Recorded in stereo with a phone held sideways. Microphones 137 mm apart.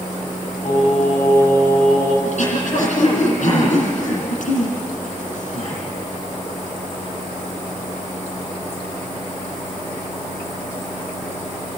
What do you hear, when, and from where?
0.7 s singing: 70° left (ahead or behind), 8 m
2.2 s throat clearing: 65° left (ahead or behind), 8 m